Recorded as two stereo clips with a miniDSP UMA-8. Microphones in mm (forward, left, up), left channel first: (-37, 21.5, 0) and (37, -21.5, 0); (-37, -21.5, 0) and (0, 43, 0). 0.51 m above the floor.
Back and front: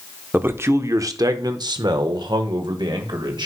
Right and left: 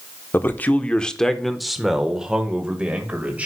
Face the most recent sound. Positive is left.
turn(degrees=-10)